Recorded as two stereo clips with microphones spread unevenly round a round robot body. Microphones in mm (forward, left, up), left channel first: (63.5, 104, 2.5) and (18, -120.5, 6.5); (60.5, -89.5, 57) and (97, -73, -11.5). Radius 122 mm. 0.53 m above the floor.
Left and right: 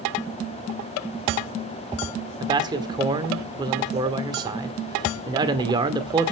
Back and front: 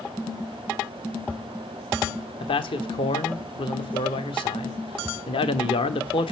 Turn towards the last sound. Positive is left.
turn(degrees=-170)